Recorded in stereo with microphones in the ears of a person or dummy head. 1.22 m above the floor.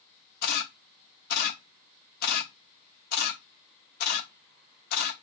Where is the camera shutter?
55° left (ahead or behind), 0.8 m.